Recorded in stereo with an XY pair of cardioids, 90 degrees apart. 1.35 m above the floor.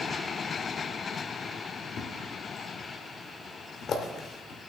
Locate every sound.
2.0 s a thud: 70° left, 2 m